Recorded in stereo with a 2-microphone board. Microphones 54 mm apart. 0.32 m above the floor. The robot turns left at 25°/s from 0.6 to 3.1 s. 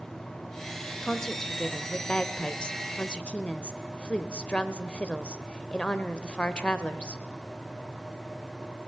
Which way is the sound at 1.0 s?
10° left (ahead or behind).